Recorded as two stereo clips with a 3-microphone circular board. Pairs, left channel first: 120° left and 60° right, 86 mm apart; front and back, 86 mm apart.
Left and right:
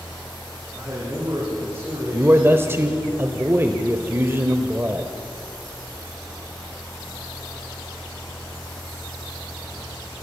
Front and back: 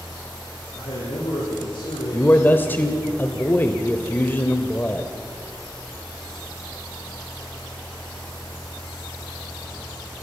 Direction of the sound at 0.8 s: 10° right.